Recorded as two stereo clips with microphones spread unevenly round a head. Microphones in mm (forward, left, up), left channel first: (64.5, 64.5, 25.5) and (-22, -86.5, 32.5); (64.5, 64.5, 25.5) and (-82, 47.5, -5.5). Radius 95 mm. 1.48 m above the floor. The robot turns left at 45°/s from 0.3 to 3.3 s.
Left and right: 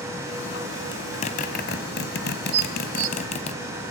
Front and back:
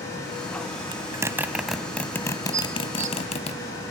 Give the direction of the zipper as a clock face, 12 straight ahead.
8 o'clock.